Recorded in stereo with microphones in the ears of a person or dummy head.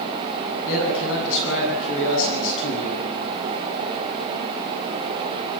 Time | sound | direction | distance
0.7 | a man speaking | 70° left (ahead or behind) | 9 m